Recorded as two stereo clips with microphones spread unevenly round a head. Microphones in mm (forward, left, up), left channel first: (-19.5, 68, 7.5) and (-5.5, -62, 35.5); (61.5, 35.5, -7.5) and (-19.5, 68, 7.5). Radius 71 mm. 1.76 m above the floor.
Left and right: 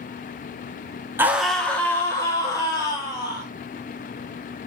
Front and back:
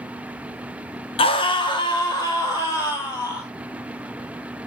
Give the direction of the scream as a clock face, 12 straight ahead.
1 o'clock.